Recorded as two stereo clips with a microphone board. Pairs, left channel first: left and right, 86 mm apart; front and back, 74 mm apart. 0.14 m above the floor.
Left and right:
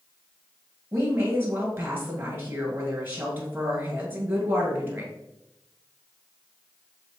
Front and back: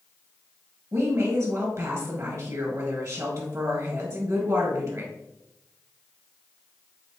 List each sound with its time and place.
0.9 s a woman speaking: 150° right, 1.9 m